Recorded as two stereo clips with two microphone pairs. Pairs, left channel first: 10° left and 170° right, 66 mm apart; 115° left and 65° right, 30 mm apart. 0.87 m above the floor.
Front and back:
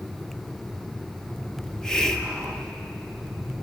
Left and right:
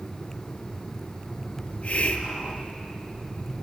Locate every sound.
1.6 s a hiss: 95° left, 0.7 m